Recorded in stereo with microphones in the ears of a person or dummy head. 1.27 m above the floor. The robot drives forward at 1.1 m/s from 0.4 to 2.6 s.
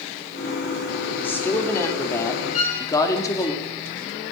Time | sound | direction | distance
1.1 | a woman speaking | 10° left (ahead or behind) | 4.5 m
2.5 | a violin | 50° left (ahead or behind) | 3 m